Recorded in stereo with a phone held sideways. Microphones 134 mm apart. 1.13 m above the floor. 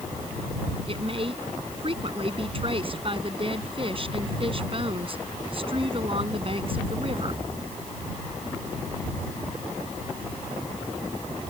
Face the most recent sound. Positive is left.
turn(degrees=-45)  # may be behind; listen again after turning